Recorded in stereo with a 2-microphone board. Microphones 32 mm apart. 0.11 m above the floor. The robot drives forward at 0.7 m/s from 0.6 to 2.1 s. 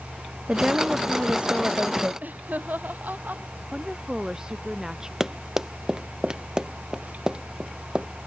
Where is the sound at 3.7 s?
20° right (ahead or behind).